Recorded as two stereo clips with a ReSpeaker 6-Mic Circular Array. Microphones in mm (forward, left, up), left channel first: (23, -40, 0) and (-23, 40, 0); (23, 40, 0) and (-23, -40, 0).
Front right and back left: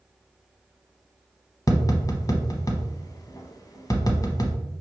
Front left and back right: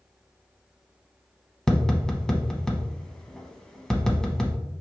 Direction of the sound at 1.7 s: 20° right.